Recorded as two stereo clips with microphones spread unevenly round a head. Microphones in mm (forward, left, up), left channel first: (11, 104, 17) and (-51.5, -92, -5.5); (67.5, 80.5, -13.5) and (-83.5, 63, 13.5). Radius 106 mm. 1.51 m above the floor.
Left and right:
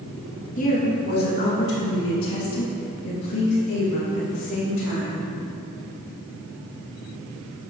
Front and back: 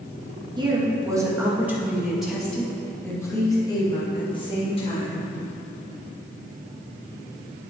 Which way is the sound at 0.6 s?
125° left.